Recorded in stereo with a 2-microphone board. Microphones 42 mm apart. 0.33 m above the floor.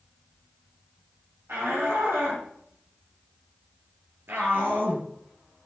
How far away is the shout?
About 8 m.